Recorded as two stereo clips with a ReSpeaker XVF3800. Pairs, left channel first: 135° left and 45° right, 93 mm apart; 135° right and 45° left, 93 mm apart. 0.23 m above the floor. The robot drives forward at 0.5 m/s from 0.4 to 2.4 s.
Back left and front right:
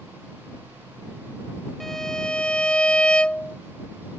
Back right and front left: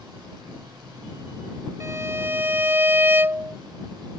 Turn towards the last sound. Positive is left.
turn(degrees=70)